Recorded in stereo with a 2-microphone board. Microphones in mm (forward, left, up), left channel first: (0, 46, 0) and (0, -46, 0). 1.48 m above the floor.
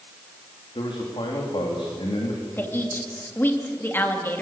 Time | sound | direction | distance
0.8 | a man speaking | 70° left (ahead or behind) | 3.5 m
2.6 | a woman speaking | 20° left (ahead or behind) | 3 m